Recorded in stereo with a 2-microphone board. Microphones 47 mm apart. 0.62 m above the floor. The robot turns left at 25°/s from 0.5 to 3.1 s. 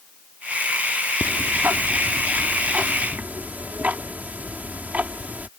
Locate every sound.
1.2 s ticking: 75° right; by 5.5 s 125° right